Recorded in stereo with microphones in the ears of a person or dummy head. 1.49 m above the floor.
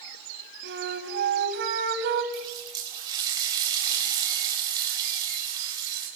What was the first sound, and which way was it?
A flute, 60° right (ahead or behind).